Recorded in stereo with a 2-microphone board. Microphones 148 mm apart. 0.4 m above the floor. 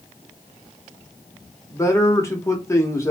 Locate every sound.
1.7 s a man speaking: 20° left (ahead or behind), 0.8 m